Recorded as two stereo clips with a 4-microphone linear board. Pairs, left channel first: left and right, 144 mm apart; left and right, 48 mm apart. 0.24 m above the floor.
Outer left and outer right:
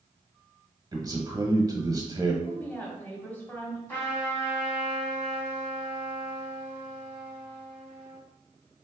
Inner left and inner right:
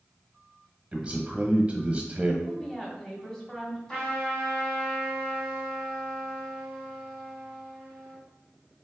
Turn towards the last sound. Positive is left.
turn(degrees=15)  # may be behind; listen again after turning